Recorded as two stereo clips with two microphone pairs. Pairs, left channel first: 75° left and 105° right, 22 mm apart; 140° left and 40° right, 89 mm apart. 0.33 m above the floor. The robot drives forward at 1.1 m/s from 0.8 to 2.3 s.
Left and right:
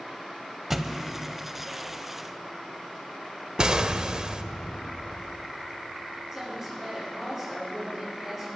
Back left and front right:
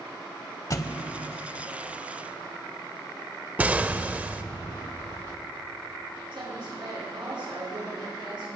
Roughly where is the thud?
Behind.